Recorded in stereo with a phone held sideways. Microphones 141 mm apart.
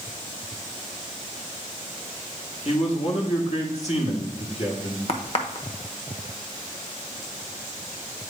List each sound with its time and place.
2.6 s a man speaking: 50° left (ahead or behind), 1.7 m
5.1 s a crack: 45° left (ahead or behind), 0.9 m